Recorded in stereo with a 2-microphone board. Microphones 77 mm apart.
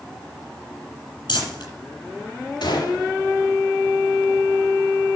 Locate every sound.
1.3 s crumpling: 75° left (ahead or behind), 8 m
2.6 s a gunshot: 80° left, 3.5 m